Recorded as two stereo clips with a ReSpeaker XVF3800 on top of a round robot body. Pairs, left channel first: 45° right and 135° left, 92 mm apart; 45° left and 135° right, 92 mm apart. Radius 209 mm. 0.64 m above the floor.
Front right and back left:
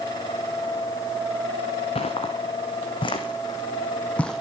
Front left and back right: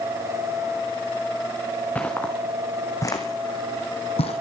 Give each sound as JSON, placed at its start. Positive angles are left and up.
{"t": 1.9, "sound": "footsteps", "azimuth_deg": -30, "distance_m": 3.0}